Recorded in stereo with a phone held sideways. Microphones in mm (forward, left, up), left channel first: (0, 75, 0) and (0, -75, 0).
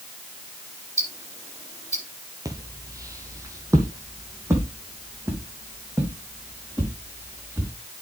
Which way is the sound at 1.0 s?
45° left (ahead or behind).